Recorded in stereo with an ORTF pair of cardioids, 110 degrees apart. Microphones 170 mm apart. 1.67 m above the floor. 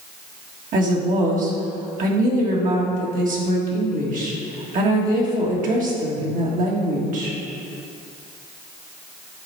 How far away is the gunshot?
No gunshot in this recording.